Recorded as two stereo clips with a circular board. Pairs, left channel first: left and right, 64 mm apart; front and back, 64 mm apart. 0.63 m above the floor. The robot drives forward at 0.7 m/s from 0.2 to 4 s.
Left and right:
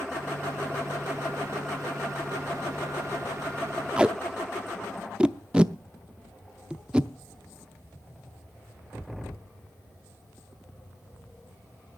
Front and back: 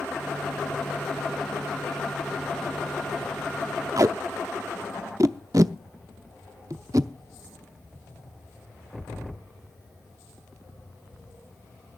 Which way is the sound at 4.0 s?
160° right.